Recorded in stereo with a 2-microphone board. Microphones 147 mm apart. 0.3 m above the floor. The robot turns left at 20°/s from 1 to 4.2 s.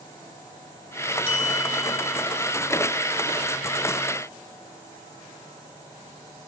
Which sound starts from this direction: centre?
A bell, at 1.3 s.